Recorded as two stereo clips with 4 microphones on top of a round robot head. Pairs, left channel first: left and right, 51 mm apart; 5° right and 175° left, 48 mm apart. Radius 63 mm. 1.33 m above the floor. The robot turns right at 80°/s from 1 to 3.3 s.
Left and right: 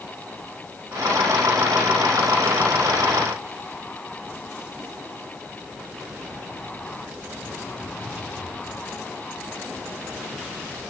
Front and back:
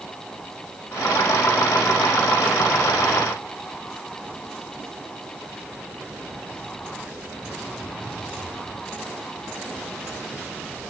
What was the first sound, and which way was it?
Only background noise.